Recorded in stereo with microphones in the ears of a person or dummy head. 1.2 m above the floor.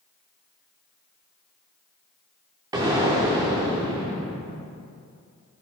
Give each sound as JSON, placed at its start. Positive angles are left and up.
{"t": 2.7, "sound": "an explosion", "side_deg": -15, "distance_m": 1.0}